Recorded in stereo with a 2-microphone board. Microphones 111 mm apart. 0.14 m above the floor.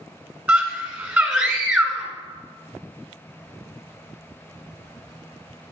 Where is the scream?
20° right (ahead or behind), 1.1 m.